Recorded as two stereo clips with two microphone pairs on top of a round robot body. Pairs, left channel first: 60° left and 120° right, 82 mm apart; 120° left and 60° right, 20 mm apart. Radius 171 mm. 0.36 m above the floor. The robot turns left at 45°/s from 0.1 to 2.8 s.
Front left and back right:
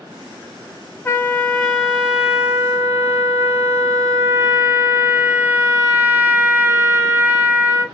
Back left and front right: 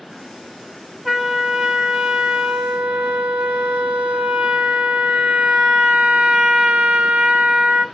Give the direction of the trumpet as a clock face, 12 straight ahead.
11 o'clock.